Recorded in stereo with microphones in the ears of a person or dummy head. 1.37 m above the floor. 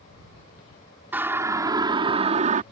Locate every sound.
1.1 s a siren: 10° right (ahead or behind); by 2.6 s 40° right (ahead or behind)